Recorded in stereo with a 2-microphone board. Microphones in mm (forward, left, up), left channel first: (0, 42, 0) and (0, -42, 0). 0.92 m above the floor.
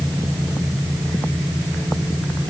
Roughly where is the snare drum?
I don't hear a snare drum.